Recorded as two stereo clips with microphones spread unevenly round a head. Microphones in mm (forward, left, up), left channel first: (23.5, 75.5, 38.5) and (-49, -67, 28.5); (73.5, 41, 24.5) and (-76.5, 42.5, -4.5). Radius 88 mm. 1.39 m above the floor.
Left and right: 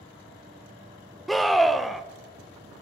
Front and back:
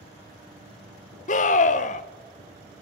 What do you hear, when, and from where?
1.3 s a scream: 25° right, 0.6 m